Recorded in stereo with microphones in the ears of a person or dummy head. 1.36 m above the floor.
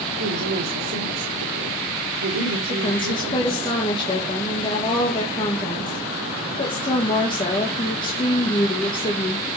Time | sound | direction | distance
0.2 | a woman speaking | 85° right | 4.5 m
2.7 | a woman speaking | 30° left (ahead or behind) | 1.6 m